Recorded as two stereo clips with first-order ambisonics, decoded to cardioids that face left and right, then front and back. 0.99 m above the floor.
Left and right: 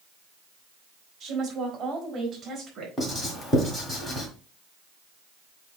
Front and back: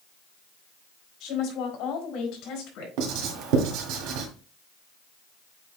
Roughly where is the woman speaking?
Ahead right.